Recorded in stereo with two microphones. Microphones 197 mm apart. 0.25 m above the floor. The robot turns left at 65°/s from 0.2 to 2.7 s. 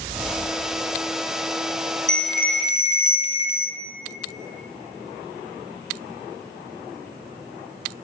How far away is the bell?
About 1.5 m.